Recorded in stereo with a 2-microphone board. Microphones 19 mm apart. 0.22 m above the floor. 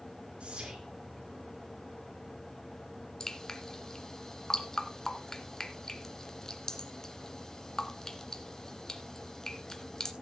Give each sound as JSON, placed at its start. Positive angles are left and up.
{"t": 0.4, "sound": "whispering", "side_deg": -65, "distance_m": 3.5}
{"t": 3.2, "sound": "dripping", "side_deg": 30, "distance_m": 1.8}